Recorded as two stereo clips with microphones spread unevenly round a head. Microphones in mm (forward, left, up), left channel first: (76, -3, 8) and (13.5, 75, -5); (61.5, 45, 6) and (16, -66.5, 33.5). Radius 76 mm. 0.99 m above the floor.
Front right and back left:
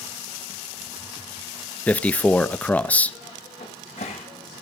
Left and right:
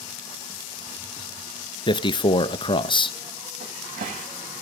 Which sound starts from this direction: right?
A cupboard door, at 3.6 s.